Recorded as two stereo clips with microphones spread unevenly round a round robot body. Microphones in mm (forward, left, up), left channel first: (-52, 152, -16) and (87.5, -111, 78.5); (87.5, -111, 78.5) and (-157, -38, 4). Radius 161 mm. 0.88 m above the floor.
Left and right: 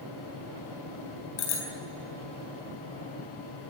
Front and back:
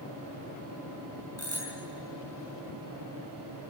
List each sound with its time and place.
1.4 s a bicycle bell: 65° left, 6.5 m